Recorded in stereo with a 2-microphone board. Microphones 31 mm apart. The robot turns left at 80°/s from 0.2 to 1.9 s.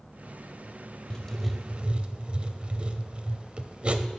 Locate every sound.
1.1 s writing: 25° left, 0.6 m; by 4.1 s 40° right, 0.6 m